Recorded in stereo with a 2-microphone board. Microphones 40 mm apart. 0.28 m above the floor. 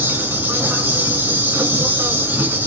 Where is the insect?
65° right (ahead or behind), 1.4 m.